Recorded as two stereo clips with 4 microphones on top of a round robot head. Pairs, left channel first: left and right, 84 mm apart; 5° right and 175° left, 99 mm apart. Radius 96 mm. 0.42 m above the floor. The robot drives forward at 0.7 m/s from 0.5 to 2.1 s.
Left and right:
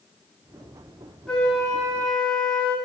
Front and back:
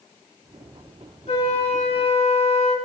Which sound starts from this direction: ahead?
A flute, at 1.3 s.